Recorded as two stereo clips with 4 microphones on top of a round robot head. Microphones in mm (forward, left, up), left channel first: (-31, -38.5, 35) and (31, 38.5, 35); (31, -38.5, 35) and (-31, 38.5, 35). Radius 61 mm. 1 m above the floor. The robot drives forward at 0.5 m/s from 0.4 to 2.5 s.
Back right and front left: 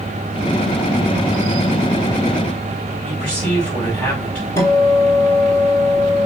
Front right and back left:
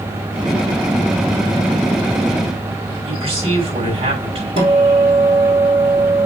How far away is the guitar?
About 3.5 m.